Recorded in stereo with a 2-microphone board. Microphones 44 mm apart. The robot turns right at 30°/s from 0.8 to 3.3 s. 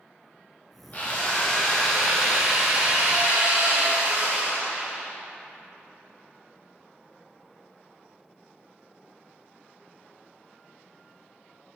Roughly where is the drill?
Behind left.